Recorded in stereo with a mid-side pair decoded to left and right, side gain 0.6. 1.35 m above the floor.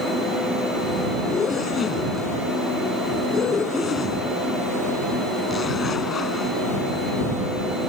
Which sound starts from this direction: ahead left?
A zipper, at 1.3 s.